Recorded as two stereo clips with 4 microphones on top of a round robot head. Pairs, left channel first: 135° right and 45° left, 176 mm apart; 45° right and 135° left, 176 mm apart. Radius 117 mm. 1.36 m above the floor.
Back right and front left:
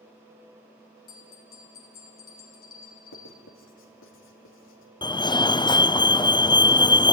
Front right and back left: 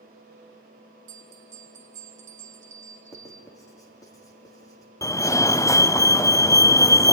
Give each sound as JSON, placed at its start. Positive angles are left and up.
{"t": 1.1, "sound": "a bell", "azimuth_deg": -175, "distance_m": 1.8}
{"t": 3.1, "sound": "writing", "azimuth_deg": -120, "distance_m": 2.5}
{"t": 5.0, "sound": "a fire alarm", "azimuth_deg": -100, "distance_m": 0.7}